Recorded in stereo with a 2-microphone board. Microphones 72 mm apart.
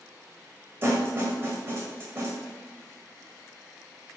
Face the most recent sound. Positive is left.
turn(degrees=-30)  # may be behind; listen again after turning